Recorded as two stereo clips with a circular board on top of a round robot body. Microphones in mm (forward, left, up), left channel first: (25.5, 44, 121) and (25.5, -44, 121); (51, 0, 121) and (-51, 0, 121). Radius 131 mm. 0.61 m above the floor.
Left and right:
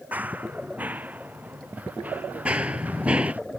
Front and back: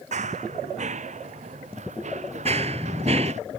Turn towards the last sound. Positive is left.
turn(degrees=-170)